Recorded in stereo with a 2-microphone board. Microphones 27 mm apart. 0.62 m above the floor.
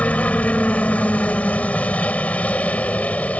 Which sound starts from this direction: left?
A helicopter, at 0.0 s.